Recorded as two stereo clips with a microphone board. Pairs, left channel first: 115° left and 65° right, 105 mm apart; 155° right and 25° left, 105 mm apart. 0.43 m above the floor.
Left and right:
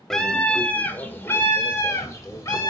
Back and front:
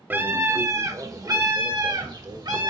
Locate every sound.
0.1 s a scream: 35° left, 1.1 m; by 2.7 s 60° left, 2 m